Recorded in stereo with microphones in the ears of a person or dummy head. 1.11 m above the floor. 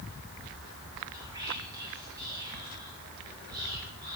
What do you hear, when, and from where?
1.1 s whispering: 20° right (ahead or behind), 4.5 m